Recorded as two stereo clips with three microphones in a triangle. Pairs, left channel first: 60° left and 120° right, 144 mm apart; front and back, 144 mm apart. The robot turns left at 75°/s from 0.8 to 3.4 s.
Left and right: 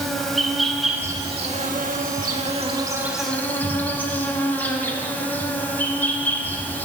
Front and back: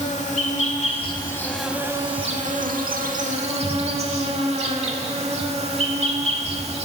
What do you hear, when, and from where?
0.0 s an insect: 30° right, 0.8 m; by 6.9 s 135° left, 0.8 m